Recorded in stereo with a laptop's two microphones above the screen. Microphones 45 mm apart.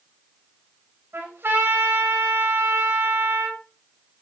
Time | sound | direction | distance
1.1 | a trumpet | 65° right (ahead or behind) | 4 m